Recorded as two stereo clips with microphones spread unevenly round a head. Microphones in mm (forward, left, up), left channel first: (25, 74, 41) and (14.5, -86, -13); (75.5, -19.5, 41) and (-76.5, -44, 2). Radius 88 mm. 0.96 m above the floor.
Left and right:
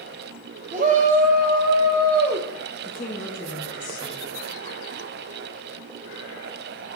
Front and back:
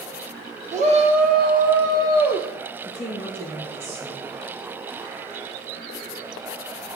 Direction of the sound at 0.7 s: 135° right.